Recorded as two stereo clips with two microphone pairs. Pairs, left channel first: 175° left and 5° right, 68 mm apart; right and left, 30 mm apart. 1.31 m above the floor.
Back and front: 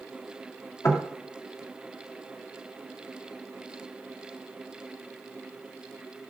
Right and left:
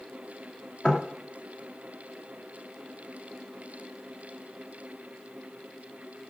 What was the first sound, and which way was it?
Knocking, 145° right.